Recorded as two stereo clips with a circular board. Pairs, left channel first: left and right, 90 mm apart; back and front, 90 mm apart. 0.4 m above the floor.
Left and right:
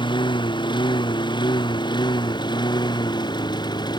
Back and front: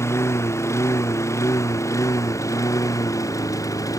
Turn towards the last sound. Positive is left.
turn(degrees=130)